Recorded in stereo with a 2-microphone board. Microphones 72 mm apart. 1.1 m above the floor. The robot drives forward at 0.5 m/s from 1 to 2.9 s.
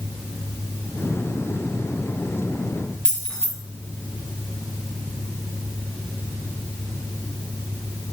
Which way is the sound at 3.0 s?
10° left (ahead or behind).